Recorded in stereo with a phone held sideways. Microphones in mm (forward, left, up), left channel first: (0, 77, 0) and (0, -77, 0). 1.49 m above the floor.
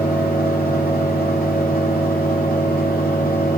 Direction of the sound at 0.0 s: 80° left.